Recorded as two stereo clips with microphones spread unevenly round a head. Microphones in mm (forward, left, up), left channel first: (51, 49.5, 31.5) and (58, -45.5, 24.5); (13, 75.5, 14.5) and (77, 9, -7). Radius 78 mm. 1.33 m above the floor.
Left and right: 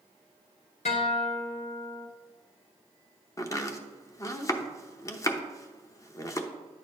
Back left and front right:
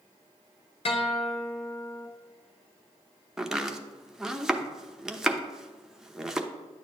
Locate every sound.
0.8 s a guitar: 125° left, 1.0 m
3.4 s chopping: 45° left, 0.8 m